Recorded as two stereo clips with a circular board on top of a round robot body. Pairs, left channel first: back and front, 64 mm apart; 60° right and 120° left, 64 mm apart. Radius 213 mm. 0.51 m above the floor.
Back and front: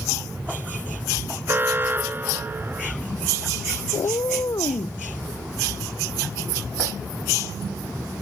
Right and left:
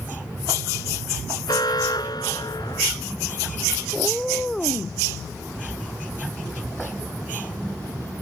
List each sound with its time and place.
1.5 s an alarm: 60° right
3.9 s a cat meowing: 145° right